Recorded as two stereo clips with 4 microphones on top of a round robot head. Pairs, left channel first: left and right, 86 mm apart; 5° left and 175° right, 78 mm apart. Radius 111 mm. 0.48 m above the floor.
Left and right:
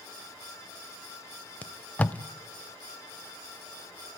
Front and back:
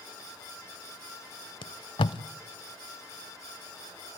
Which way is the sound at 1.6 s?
15° left.